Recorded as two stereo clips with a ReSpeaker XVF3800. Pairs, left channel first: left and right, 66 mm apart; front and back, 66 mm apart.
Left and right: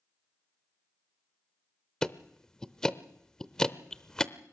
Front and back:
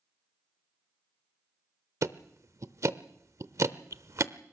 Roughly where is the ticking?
Behind.